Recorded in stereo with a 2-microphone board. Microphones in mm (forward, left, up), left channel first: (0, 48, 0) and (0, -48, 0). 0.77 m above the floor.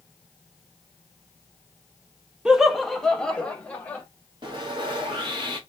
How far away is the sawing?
About 1.2 m.